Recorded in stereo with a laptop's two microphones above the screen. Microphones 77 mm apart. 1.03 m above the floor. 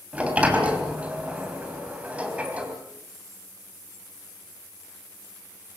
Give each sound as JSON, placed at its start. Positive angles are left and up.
{"t": 0.1, "sound": "a sliding door", "side_deg": -15, "distance_m": 3.0}